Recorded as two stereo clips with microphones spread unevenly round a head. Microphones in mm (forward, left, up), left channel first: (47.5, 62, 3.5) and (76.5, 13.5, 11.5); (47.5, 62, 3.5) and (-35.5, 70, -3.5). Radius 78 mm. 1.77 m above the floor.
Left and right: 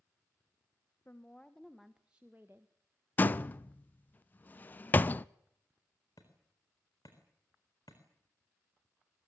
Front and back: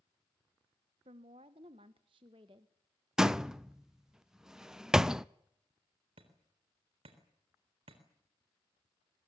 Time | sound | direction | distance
1.1 | a woman speaking | 165° right | 1.2 m
3.2 | a door slam | 90° left | 0.5 m
6.2 | hammering | 175° right | 3.5 m